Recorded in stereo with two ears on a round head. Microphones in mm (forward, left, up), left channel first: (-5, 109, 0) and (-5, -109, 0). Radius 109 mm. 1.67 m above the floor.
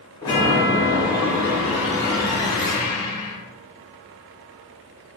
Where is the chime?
20° left (ahead or behind), 0.9 m.